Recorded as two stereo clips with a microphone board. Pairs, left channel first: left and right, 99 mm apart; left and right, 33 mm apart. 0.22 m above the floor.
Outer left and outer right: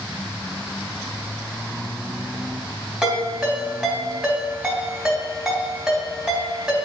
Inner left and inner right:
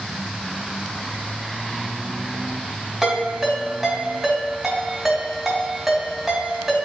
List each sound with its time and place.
3.0 s a ringtone: 10° right (ahead or behind), 3 m